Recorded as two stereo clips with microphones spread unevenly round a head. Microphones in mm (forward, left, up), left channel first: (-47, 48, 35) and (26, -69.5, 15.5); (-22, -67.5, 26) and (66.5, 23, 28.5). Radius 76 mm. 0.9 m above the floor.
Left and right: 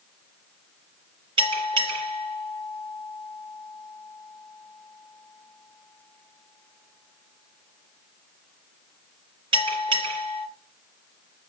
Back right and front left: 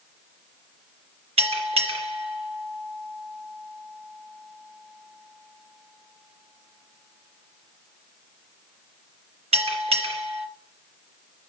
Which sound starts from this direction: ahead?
A bell, at 1.4 s.